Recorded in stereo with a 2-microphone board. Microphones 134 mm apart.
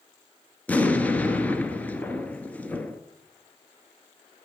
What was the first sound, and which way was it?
An explosion, 10° left (ahead or behind).